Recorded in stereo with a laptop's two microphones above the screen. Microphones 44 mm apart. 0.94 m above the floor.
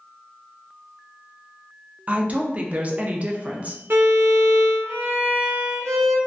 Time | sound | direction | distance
2.1 | a woman speaking | 30° right (ahead or behind) | 0.5 m
3.9 | a violin | 55° right (ahead or behind) | 0.7 m